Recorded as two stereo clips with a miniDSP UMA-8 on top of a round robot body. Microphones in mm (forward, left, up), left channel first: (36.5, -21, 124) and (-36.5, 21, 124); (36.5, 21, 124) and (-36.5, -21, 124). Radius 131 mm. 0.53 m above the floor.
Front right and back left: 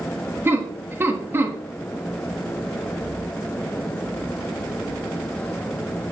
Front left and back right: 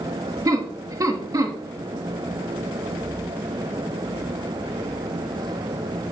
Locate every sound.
0.5 s laughter: 160° right, 1.7 m